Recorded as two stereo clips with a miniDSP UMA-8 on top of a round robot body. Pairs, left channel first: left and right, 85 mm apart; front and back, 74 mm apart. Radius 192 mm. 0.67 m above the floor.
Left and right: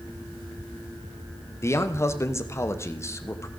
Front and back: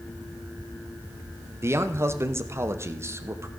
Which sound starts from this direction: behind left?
A man speaking, at 1.6 s.